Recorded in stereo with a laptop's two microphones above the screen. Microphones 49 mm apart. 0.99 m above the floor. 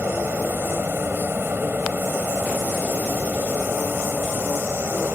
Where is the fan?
45° right (ahead or behind).